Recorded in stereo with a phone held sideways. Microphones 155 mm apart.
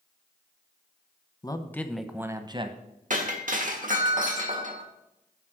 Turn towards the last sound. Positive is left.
turn(degrees=-60)  # may be behind; listen again after turning